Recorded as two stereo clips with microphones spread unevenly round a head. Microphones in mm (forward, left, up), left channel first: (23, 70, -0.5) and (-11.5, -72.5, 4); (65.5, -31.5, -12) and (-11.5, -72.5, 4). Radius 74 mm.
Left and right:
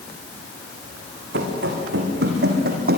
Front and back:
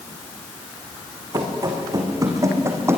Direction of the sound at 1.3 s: 110° right.